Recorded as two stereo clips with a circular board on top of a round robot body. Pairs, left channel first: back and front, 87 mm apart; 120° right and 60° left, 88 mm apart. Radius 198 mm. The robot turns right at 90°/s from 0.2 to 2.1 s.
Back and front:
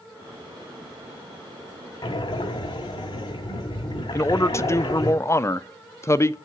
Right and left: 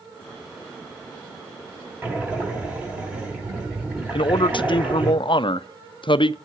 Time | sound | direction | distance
2.0 | breathing | 130° left | 1.2 m
4.1 | a man speaking | 125° right | 0.5 m